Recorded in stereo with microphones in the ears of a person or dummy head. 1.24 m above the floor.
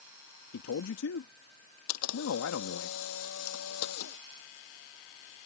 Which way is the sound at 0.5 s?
80° left.